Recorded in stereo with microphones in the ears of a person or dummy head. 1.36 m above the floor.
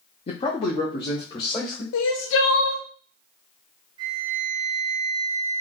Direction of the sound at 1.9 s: 75° left (ahead or behind).